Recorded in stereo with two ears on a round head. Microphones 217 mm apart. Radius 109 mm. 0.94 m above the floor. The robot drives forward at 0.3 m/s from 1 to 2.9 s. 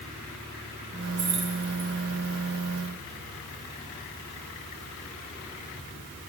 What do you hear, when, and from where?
1.2 s keys jangling: 50° right (ahead or behind), 1.9 m; by 1.9 s 45° right (ahead or behind), 2 m